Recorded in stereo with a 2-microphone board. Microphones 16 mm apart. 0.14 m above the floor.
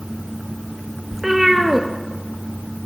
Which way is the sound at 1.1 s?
25° right (ahead or behind).